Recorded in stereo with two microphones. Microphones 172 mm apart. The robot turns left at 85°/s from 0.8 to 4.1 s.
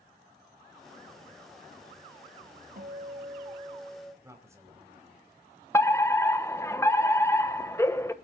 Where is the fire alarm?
15° left (ahead or behind), 1.1 m.